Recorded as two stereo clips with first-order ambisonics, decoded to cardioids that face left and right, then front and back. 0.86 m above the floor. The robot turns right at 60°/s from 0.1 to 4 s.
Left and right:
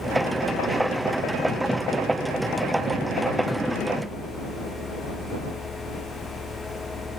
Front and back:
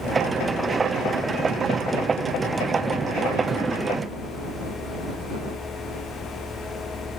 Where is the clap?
No clap in this recording.